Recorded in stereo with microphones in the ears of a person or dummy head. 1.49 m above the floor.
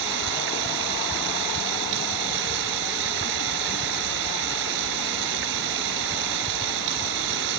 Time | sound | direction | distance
0.0 | running water | 65° right (ahead or behind) | ?